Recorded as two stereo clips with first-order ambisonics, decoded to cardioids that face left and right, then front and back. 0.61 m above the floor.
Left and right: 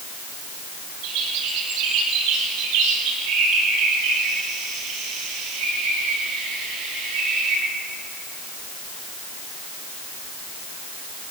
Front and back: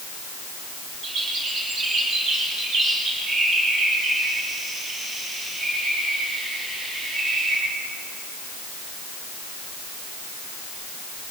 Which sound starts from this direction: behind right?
A bird, at 1.0 s.